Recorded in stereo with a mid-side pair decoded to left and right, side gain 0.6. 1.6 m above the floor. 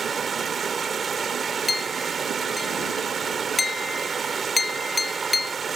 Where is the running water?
30° right.